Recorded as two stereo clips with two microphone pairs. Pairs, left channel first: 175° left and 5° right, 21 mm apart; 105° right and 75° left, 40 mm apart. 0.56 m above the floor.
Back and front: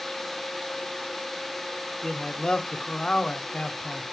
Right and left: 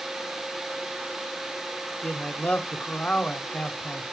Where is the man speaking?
150° right, 1.3 m.